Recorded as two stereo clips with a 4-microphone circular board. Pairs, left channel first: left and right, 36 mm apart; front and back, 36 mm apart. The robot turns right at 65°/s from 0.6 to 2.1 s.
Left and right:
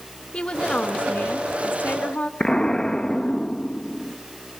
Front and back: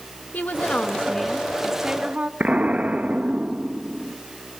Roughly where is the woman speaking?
Ahead left.